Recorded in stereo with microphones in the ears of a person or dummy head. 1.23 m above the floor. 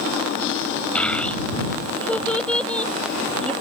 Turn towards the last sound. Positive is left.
turn(degrees=5)  # may be behind; listen again after turning